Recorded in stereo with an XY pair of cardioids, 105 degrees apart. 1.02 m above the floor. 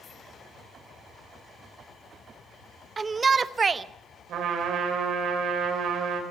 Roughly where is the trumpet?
Ahead right.